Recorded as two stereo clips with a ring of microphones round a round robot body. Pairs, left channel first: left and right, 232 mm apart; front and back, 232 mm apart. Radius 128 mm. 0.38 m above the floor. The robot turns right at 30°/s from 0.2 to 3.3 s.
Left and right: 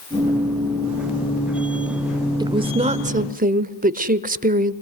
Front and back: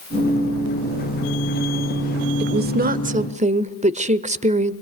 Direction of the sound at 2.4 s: 155° right.